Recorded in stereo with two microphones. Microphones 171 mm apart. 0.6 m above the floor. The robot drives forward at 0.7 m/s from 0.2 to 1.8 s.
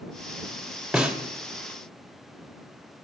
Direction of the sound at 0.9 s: 5° right (ahead or behind).